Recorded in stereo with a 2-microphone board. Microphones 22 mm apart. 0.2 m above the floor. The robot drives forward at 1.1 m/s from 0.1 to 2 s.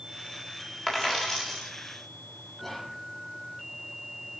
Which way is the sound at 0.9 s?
15° left (ahead or behind).